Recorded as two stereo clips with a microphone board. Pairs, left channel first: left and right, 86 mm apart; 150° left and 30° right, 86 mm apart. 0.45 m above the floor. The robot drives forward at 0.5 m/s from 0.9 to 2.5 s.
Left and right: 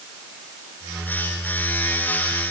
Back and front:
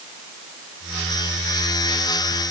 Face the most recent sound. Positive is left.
No sound to turn to.